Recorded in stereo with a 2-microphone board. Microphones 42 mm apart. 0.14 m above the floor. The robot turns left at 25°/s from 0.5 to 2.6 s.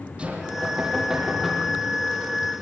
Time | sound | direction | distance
0.2 | knocking | 150° right | 4 m